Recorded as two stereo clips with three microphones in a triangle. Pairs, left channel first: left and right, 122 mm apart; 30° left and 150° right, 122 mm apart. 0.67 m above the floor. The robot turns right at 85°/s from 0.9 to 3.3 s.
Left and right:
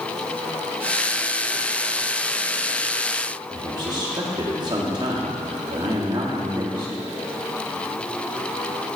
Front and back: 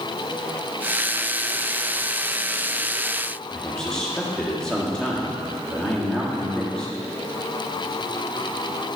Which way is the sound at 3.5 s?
50° right.